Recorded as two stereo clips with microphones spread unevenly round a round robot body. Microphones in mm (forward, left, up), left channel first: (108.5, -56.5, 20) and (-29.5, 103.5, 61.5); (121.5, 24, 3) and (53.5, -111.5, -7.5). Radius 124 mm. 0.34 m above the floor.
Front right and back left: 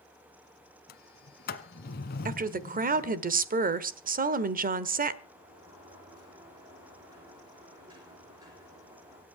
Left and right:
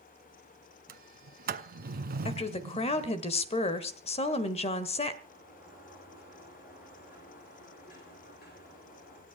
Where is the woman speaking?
90° left, 1.3 m.